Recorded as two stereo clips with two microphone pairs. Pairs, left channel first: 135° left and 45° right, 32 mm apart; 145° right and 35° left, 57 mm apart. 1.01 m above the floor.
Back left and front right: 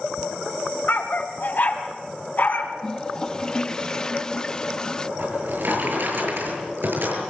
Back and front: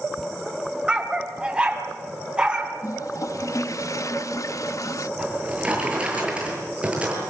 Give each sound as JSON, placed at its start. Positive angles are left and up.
{"t": 0.9, "sound": "a dog barking", "azimuth_deg": 105, "distance_m": 2.5}
{"t": 2.8, "sound": "a toilet flushing", "azimuth_deg": -160, "distance_m": 0.6}
{"t": 5.2, "sound": "a drawer", "azimuth_deg": -35, "distance_m": 8.0}